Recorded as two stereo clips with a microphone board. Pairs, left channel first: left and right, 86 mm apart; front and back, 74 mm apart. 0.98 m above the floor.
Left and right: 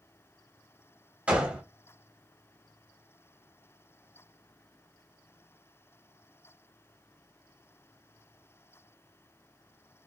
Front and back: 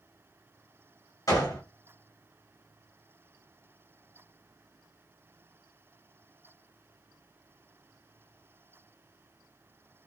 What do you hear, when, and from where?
1.3 s a gunshot: 20° right, 1.1 m